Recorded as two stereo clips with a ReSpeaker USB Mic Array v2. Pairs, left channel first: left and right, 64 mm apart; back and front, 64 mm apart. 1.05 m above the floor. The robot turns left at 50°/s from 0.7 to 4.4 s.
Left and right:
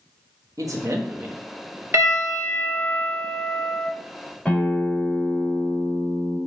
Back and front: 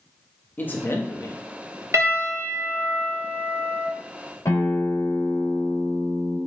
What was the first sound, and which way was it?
A man speaking, 120° right.